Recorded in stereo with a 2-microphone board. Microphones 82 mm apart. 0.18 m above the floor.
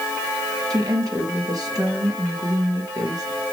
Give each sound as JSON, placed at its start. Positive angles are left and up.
{"t": 0.7, "sound": "a woman speaking", "side_deg": -50, "distance_m": 3.5}